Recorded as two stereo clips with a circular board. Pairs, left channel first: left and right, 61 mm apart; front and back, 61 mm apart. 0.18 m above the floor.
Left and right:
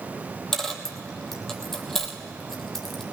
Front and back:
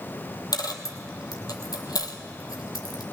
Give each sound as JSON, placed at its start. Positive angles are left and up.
{"t": 0.5, "sound": "a dropped coin", "azimuth_deg": 5, "distance_m": 1.3}